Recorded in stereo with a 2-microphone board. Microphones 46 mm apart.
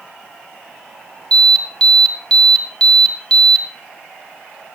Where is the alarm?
20° left (ahead or behind), 2.5 m.